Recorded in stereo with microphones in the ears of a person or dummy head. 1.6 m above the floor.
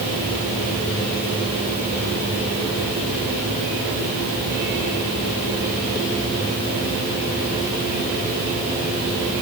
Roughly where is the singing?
No singing in this recording.